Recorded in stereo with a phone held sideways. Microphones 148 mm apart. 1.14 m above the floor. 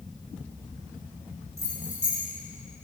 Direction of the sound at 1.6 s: 25° right (ahead or behind).